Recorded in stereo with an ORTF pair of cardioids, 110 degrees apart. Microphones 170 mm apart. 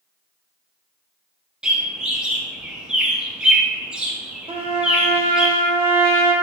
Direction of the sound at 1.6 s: 5° right.